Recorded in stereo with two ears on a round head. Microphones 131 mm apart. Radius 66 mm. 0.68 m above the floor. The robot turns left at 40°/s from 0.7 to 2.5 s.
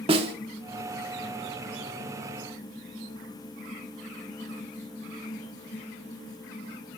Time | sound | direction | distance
0.1 | a snare drum | 40° right (ahead or behind) | 1.4 m